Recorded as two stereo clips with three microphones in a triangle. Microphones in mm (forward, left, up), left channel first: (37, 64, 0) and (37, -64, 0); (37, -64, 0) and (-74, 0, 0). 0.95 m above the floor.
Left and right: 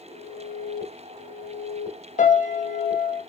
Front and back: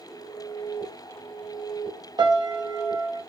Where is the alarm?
30° left, 1.5 m.